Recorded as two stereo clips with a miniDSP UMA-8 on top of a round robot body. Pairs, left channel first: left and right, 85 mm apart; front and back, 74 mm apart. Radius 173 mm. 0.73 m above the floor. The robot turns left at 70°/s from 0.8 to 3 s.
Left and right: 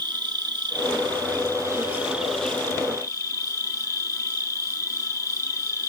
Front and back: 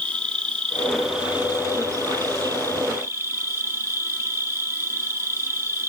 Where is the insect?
75° right, 1.5 m; by 5.9 s 130° left, 1.5 m.